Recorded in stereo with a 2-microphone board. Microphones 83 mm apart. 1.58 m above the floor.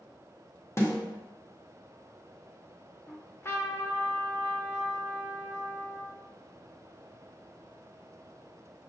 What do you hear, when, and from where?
0.8 s a snare drum: 30° left (ahead or behind), 1.1 m
3.1 s a trumpet: 30° left (ahead or behind), 0.6 m